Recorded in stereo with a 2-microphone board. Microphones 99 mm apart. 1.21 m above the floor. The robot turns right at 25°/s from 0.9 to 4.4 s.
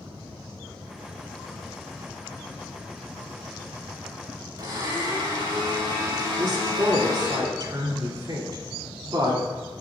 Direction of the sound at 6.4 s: 50° right (ahead or behind).